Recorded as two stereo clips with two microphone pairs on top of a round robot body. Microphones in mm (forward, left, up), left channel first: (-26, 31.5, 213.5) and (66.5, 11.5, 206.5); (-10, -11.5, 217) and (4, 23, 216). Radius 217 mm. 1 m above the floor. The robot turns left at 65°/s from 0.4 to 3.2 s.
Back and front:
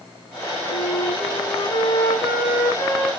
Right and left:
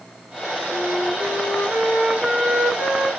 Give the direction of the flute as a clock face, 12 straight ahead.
5 o'clock.